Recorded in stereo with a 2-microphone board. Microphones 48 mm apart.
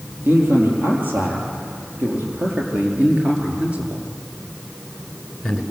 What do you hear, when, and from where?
0.2 s a man speaking: 45° right (ahead or behind), 7.5 m; by 5.6 s centre (ahead or behind), 3 m